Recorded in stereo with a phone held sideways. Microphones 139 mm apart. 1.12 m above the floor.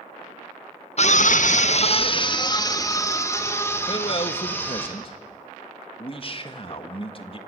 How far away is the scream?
About 1.1 m.